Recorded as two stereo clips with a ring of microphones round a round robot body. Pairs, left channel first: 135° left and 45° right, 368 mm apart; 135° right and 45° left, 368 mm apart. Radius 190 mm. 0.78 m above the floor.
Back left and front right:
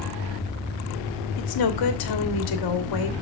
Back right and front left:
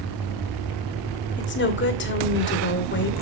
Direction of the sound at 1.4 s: 165° left.